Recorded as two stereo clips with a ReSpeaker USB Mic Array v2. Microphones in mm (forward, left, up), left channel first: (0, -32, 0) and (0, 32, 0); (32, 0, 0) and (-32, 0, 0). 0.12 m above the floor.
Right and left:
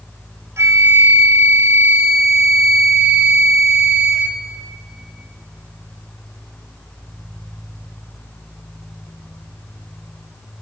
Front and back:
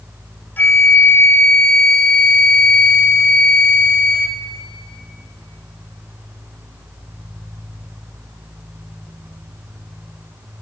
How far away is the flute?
About 0.6 m.